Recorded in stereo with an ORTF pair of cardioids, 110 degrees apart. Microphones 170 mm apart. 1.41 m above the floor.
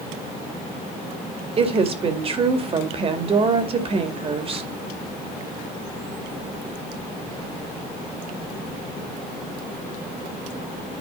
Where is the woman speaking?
35° right, 2 m.